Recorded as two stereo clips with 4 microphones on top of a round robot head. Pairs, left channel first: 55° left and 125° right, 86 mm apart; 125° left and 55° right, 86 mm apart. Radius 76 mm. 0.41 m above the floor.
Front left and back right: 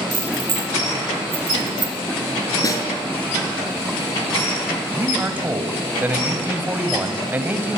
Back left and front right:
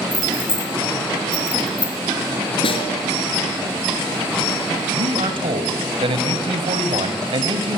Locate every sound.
0.1 s keys jangling: 160° right, 5.5 m
2.6 s a snare drum: 105° left, 5 m
4.9 s a man speaking: 55° right, 3 m